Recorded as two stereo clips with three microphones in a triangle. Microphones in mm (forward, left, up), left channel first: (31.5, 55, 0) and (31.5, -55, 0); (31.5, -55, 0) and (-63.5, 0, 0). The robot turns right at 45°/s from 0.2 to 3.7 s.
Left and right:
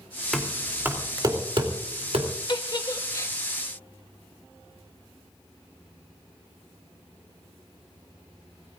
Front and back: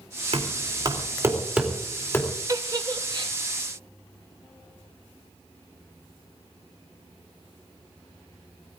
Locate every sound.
0.3 s knocking: 175° left, 3 m; by 2.3 s 95° right, 3 m
2.5 s a giggle: 110° left, 1.0 m; by 3.3 s 145° left, 1.0 m